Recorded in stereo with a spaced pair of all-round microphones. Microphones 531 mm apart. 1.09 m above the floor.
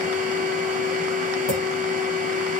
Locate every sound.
0.0 s a machine running: 15° right (ahead or behind), 0.9 m
1.5 s a clink: 45° left (ahead or behind), 1.0 m